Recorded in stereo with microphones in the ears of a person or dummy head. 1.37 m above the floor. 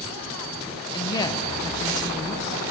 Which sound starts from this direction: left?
A woman speaking, at 0.9 s.